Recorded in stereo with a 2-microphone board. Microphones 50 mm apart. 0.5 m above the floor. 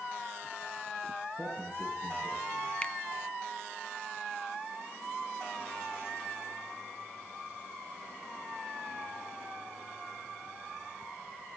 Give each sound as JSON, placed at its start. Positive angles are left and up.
{"t": 1.4, "sound": "a man speaking", "side_deg": 30, "distance_m": 8.0}
{"t": 2.8, "sound": "a finger snap", "side_deg": 20, "distance_m": 0.6}